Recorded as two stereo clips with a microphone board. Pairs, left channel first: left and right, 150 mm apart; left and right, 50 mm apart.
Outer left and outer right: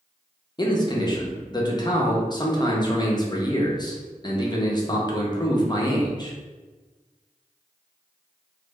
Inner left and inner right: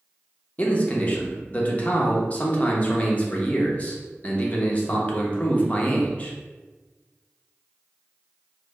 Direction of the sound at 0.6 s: 30° left (ahead or behind).